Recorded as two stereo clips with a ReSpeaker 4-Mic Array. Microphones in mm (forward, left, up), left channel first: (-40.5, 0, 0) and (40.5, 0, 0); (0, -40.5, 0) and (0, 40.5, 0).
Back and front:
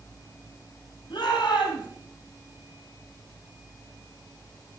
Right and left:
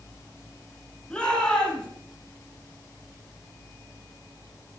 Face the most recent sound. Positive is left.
turn(degrees=-165)